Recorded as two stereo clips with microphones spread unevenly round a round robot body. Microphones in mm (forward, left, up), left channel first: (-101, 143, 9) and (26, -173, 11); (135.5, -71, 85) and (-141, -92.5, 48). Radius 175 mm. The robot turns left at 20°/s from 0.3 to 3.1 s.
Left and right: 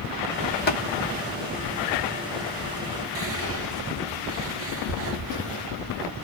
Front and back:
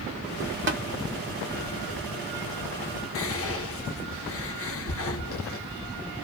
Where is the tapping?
165° left, 1.0 m; by 0.8 s 160° left, 1.0 m.